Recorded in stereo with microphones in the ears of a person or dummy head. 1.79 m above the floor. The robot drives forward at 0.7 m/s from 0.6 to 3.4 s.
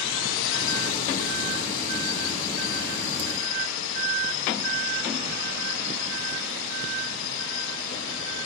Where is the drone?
65° left (ahead or behind).